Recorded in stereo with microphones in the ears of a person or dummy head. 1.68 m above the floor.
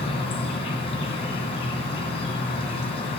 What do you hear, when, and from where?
0.0 s an insect: 30° left (ahead or behind), 2.5 m